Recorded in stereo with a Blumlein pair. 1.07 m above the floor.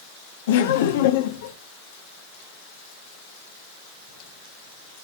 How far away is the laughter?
About 1.2 m.